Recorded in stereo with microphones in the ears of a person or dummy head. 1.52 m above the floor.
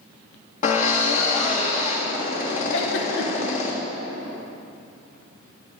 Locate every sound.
0.6 s a drill: 45° left (ahead or behind), 1.5 m
2.7 s a giggle: 75° left (ahead or behind), 1.2 m